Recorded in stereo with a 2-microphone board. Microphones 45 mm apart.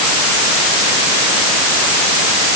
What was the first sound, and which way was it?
Only background noise.